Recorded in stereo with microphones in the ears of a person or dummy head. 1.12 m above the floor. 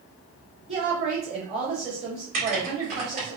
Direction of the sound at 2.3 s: 45° right (ahead or behind).